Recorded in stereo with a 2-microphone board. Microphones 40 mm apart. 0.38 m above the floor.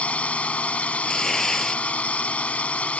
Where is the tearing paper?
10° left (ahead or behind).